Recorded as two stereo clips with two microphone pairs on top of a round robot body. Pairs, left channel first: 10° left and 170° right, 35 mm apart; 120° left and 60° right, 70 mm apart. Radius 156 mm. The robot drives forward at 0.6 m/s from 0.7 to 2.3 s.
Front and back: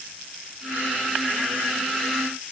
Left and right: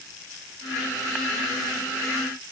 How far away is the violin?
I don't hear a violin.